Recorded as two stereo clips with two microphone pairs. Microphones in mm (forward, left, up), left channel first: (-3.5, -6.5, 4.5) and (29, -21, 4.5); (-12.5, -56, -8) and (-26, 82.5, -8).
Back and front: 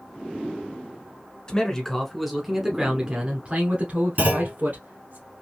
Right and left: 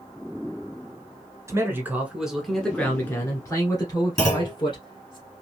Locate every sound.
1.5 s a man speaking: 125° left, 1.1 m; by 5.2 s 40° right, 1.9 m
4.2 s a clunk: 15° right, 2.5 m